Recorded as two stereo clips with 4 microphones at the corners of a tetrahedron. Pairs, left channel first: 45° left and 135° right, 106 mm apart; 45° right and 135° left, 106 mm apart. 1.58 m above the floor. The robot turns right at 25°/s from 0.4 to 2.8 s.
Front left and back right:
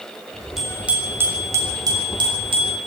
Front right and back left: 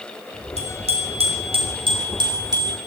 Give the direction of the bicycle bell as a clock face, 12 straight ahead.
7 o'clock.